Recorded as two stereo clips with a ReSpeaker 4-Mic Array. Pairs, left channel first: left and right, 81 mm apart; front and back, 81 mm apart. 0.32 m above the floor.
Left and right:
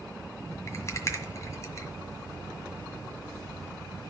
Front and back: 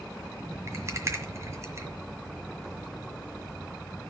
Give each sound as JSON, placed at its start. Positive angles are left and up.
{"t": 0.7, "sound": "a rattle", "azimuth_deg": 135, "distance_m": 1.7}